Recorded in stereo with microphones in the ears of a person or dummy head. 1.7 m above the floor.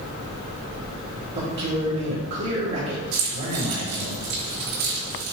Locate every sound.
1.4 s a man speaking: 60° right (ahead or behind), 3 m
3.1 s keys jangling: 75° right (ahead or behind), 3 m